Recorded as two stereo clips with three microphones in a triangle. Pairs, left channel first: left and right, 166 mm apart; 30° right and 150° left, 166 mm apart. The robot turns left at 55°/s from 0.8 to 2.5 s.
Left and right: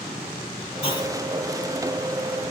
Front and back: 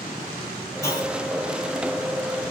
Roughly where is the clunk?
Ahead left.